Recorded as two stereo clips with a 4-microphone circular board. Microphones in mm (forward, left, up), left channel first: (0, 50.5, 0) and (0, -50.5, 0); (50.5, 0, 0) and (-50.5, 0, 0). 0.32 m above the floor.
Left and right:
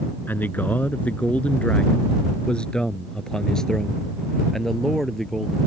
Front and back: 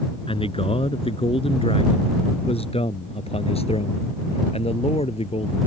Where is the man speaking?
20° left; by 5.6 s straight ahead.